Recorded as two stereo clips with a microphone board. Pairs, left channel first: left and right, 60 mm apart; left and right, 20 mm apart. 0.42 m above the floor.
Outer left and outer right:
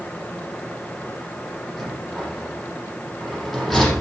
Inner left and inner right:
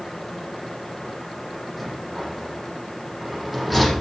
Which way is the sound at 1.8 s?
Centre (ahead or behind).